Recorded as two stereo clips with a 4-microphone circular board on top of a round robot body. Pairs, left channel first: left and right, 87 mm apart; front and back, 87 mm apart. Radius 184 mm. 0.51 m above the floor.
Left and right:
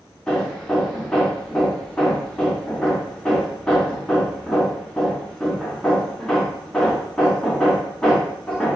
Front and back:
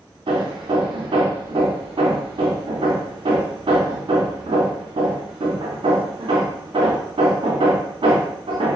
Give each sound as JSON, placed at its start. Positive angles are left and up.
{"t": 0.3, "sound": "hammering", "azimuth_deg": 170, "distance_m": 0.6}